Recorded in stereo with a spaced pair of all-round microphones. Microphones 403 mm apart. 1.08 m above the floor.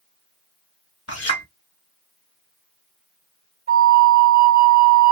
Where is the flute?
25° right (ahead or behind), 1.0 m.